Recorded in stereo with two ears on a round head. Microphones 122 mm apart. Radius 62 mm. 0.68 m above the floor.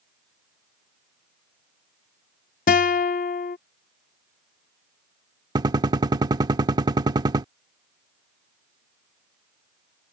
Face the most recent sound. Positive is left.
turn(degrees=-30)  # may be behind; listen again after turning